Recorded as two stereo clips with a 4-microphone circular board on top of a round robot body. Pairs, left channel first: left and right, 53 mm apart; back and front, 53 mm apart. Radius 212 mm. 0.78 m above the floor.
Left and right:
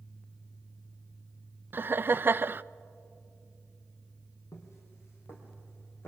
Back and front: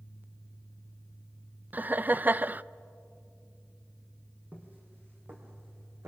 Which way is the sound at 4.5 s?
55° left.